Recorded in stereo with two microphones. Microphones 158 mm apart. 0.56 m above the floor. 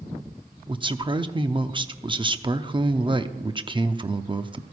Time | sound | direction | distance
0.7 | a man speaking | 30° right (ahead or behind) | 0.6 m